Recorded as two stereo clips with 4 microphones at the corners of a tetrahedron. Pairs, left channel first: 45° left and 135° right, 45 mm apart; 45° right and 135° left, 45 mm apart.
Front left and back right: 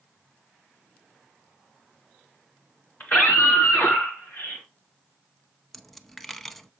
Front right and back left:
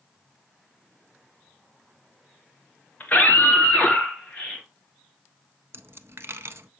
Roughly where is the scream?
Ahead.